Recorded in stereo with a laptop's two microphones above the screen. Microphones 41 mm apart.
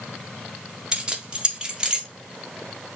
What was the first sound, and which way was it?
Keys jangling, 20° right (ahead or behind).